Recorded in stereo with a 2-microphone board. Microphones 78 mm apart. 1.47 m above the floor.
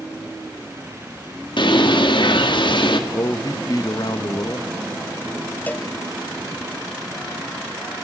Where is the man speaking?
55° left (ahead or behind), 1.5 m.